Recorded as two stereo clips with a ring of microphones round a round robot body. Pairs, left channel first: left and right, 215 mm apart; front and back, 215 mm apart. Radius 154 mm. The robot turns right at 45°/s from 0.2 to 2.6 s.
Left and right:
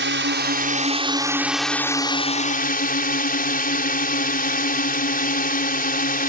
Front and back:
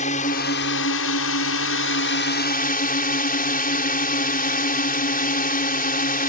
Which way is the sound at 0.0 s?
65° right.